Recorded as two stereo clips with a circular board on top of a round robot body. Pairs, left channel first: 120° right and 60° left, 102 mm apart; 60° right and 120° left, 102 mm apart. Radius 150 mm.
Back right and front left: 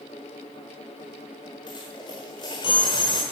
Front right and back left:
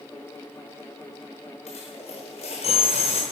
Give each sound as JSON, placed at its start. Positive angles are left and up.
{"t": 1.7, "sound": "a dropped coin", "azimuth_deg": -75, "distance_m": 1.0}